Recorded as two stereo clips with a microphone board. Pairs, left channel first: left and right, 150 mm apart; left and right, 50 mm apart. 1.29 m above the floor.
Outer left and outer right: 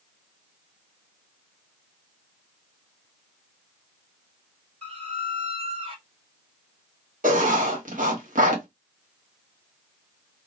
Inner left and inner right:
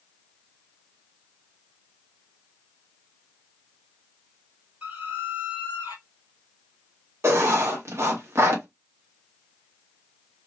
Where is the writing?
60° right (ahead or behind), 0.9 m.